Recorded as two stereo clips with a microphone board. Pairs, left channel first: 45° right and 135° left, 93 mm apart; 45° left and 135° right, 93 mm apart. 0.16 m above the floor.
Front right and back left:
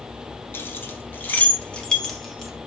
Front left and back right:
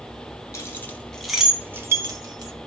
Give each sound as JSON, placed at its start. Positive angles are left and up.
{"t": 0.5, "sound": "keys jangling", "azimuth_deg": 5, "distance_m": 1.0}